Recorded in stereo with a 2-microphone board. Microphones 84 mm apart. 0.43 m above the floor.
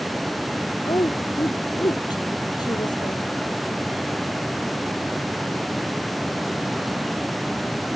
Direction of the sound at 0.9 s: 50° left (ahead or behind).